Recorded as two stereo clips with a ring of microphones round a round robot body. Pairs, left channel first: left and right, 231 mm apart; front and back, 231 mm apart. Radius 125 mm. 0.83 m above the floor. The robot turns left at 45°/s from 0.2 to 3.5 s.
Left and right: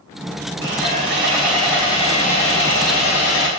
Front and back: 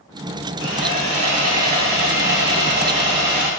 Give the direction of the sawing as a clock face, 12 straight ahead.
5 o'clock.